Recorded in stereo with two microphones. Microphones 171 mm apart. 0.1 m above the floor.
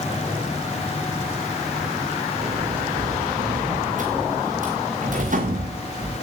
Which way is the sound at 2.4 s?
55° right (ahead or behind).